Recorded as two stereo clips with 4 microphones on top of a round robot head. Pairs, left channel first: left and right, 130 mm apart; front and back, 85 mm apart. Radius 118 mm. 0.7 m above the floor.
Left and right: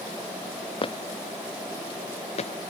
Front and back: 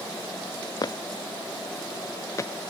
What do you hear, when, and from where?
0.8 s footsteps: 40° left; by 2.5 s 55° left